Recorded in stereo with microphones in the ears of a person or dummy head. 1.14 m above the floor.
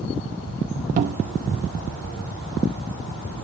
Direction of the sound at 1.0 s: 45° right (ahead or behind).